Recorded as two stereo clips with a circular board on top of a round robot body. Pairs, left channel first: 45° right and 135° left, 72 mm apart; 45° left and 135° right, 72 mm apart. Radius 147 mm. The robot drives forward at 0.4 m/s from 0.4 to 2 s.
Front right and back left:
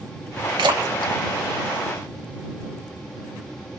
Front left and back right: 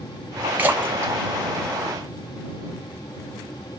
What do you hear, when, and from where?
0.6 s a splash: 155° left, 0.5 m; by 2.4 s 170° left, 1.0 m